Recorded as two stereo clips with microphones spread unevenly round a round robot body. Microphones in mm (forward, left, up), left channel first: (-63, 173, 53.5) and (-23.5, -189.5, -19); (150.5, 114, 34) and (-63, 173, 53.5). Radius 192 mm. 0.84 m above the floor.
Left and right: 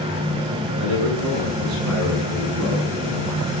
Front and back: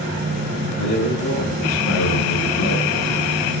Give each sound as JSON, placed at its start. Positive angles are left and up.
{"t": 0.8, "sound": "a man speaking", "azimuth_deg": -35, "distance_m": 9.0}